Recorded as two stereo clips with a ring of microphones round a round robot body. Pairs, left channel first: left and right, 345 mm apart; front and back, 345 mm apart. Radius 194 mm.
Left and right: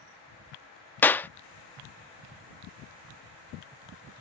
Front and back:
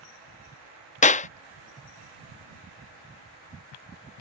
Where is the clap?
15° left.